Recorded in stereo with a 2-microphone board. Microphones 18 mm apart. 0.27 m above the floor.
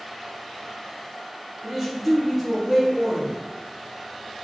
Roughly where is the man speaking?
Right.